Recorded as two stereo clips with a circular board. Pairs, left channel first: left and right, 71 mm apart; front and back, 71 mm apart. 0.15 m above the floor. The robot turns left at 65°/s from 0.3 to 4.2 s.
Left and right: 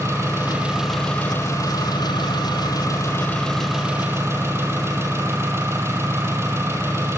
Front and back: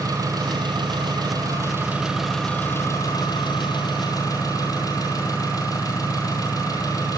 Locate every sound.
0.0 s an engine running: 140° right, 3 m; by 7.2 s 35° right, 3 m